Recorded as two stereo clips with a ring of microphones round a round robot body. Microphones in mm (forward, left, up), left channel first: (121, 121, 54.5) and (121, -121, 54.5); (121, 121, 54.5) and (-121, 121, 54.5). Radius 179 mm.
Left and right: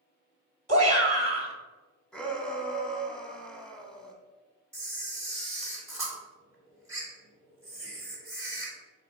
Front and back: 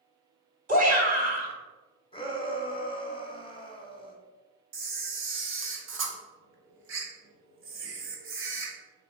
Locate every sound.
0.7 s a shout: 140° right, 1.7 m
2.1 s a shout: 10° left, 1.6 m
4.7 s a camera shutter: 170° right, 1.5 m